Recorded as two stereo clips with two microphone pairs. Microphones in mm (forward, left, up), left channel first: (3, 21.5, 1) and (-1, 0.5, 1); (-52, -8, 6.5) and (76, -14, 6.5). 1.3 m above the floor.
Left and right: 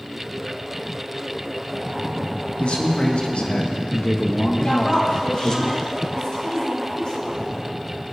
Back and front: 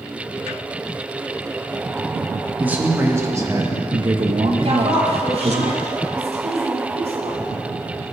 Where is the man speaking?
75° left, 1.9 m; by 5.6 s 25° left, 1.9 m.